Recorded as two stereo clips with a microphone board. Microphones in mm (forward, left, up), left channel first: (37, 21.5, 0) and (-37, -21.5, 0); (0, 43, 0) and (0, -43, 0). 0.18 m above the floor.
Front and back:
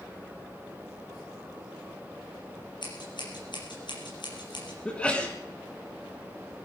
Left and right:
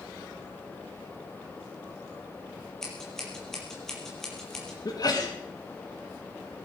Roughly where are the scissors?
Ahead.